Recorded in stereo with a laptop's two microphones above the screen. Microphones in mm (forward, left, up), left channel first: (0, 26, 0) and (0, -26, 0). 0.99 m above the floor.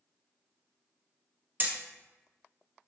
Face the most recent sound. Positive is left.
turn(degrees=-35)  # may be behind; listen again after turning